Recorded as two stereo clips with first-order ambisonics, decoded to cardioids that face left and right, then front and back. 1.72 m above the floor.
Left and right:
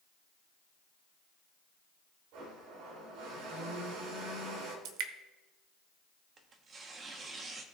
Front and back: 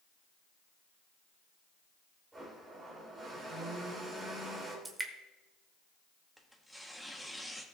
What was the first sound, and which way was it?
A blender, 100° right.